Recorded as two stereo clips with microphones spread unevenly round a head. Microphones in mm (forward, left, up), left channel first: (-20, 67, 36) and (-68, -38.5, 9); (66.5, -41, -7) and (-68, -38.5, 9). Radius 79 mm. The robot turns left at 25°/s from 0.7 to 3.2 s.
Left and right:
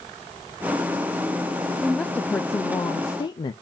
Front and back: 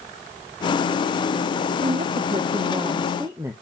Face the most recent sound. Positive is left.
turn(degrees=110)